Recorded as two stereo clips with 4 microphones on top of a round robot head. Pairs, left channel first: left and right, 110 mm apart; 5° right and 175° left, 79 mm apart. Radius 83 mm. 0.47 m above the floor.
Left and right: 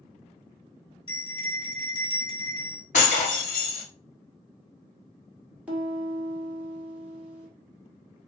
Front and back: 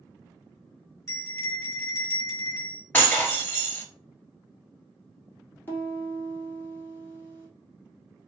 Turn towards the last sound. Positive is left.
turn(degrees=-25)